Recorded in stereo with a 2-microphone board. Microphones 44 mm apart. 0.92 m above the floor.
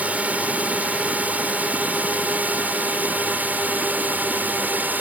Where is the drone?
35° right (ahead or behind); by 5.0 s 45° right (ahead or behind).